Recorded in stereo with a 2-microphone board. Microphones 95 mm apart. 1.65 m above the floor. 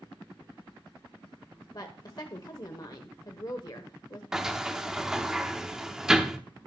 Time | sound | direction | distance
1.7 | a woman speaking | 50° left (ahead or behind) | 1.0 m
4.3 | a sliding door | 5° right (ahead or behind) | 0.9 m